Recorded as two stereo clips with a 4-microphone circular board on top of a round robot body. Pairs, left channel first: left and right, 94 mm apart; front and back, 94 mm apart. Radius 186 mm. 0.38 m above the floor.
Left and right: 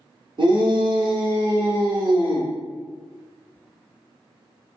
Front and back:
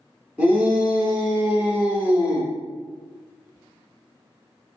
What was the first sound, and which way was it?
A shout, 105° right.